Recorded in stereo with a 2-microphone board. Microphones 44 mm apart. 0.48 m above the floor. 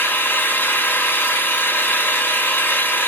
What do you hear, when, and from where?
0.0 s an engine running: 50° left (ahead or behind), 1.3 m